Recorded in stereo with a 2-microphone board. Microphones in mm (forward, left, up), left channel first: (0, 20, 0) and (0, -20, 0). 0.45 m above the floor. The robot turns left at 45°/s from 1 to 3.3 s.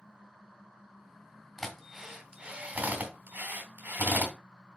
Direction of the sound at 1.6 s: 5° left (ahead or behind).